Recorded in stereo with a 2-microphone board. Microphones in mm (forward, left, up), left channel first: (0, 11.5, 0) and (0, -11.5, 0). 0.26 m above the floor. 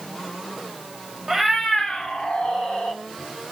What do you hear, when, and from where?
1.3 s a cat meowing: 15° right (ahead or behind), 0.5 m; by 3.0 s 70° left (ahead or behind), 1.6 m